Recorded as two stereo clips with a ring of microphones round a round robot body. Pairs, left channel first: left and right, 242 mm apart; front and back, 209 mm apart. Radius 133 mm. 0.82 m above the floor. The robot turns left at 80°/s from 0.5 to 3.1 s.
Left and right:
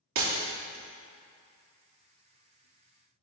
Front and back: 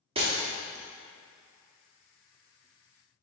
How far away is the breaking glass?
About 1.0 m.